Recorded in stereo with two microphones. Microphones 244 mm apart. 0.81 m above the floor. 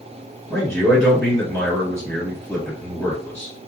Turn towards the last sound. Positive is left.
turn(degrees=5)  # may be behind; listen again after turning